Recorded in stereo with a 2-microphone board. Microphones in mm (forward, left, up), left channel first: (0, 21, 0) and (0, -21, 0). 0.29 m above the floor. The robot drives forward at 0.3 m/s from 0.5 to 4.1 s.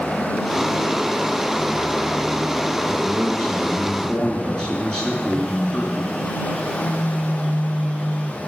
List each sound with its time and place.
2.8 s a man speaking: 15° left (ahead or behind), 4 m
5.3 s a phone buzzing: 30° left (ahead or behind), 7.5 m